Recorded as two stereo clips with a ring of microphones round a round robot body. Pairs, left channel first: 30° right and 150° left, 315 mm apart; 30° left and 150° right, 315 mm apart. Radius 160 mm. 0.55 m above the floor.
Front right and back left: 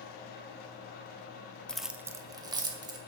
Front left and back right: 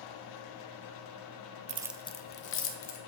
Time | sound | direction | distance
1.7 | keys jangling | 115° right | 0.5 m